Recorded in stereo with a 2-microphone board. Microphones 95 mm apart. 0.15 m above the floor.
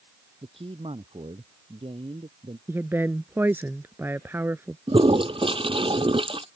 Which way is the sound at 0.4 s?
75° right (ahead or behind).